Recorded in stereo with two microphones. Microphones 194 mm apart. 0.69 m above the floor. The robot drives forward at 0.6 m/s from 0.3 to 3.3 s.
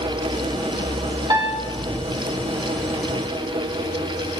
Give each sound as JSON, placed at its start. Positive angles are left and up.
{"t": 1.3, "sound": "a piano", "side_deg": -20, "distance_m": 1.0}